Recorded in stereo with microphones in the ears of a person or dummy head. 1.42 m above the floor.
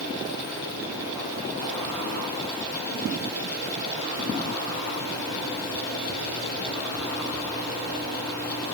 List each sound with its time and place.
Only background noise.